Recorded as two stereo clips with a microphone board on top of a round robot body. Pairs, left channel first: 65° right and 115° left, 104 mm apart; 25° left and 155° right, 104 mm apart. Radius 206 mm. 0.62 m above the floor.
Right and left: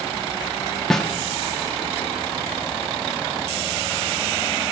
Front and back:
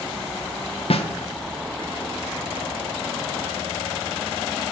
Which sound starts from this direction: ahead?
A snare drum, at 0.9 s.